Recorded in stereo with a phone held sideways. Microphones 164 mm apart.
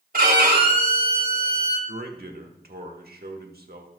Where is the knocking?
I don't hear knocking.